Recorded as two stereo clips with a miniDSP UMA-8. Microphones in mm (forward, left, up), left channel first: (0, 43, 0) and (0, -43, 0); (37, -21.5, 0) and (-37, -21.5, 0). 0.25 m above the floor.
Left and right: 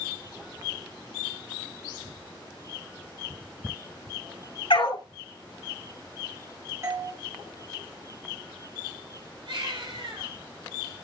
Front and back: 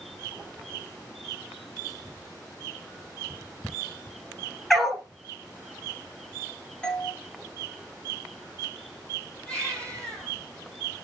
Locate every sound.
4.7 s a dog barking: 85° left, 1.9 m
6.8 s a doorbell: 65° right, 2.5 m
9.5 s a baby crying: 75° right, 5 m